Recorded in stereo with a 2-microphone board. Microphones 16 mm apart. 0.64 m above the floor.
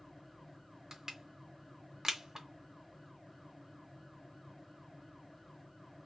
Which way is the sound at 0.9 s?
40° right (ahead or behind).